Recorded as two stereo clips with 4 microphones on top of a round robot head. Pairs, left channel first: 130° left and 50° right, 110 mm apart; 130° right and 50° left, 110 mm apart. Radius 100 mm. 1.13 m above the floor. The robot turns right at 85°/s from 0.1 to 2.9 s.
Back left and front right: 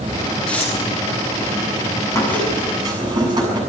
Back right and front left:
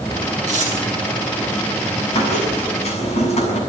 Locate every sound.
0.5 s tearing paper: 45° left, 8 m; by 0.7 s 70° left, 8 m
2.1 s a squeak: 165° right, 7.5 m; by 3.6 s 105° right, 7.5 m